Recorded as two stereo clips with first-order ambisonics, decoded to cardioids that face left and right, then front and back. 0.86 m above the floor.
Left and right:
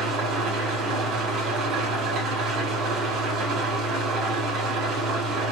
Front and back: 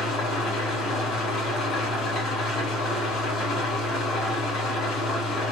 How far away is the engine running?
About 1.7 m.